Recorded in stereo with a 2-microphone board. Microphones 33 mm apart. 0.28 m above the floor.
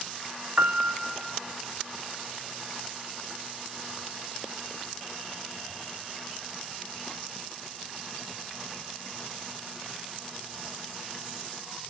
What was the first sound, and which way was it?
A piano, 40° right (ahead or behind).